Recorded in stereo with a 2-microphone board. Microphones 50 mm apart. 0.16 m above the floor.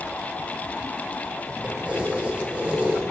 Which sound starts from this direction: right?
Keys jangling, at 1.6 s.